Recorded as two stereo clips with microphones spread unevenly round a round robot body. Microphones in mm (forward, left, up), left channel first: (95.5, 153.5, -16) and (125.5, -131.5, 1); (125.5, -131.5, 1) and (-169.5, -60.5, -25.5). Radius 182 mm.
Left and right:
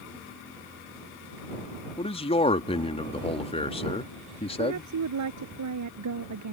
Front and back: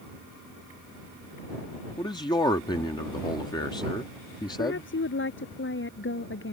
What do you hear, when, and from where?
2.0 s a man speaking: 60° left
4.6 s a woman speaking: 65° right